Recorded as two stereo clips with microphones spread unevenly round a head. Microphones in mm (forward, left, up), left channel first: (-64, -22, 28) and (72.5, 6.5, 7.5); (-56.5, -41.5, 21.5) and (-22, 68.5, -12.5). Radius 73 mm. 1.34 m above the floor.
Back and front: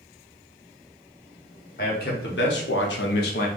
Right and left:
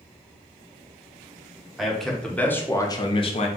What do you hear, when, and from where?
1.8 s a man speaking: 160° left, 1.0 m; by 3.5 s 140° right, 0.6 m